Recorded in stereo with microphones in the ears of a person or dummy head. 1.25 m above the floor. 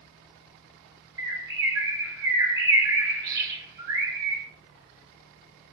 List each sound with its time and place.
1.2 s a bird: 20° right (ahead or behind), 0.8 m